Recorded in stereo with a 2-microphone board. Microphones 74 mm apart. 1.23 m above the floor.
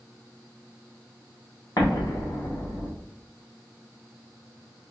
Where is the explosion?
55° left (ahead or behind), 0.8 m.